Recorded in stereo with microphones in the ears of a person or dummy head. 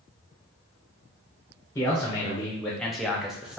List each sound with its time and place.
1.8 s a man speaking: 15° left (ahead or behind), 0.6 m; by 3.6 s 5° right (ahead or behind), 0.8 m